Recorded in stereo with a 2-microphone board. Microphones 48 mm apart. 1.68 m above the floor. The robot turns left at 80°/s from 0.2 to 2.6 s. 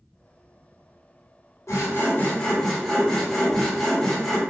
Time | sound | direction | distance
1.7 | sawing | 85° left | 1.1 m